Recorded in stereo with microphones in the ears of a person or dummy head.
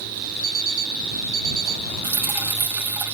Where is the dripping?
15° right (ahead or behind).